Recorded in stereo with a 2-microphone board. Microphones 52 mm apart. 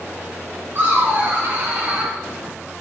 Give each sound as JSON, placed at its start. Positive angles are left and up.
{"t": 0.8, "sound": "laughter", "side_deg": -50, "distance_m": 1.9}